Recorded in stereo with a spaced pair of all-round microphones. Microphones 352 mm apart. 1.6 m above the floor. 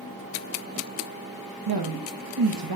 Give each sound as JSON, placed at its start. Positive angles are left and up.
{"t": 1.7, "sound": "a woman speaking", "side_deg": -75, "distance_m": 0.8}